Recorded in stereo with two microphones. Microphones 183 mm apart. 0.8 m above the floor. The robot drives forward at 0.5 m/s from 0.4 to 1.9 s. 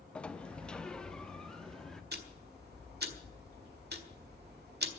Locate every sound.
0.1 s a sliding door: 5° left (ahead or behind), 0.5 m; by 2.0 s centre (ahead or behind), 1.2 m
2.1 s ticking: 65° right (ahead or behind), 1.5 m